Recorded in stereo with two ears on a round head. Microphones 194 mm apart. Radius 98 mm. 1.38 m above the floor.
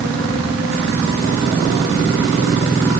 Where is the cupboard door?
No cupboard door in this recording.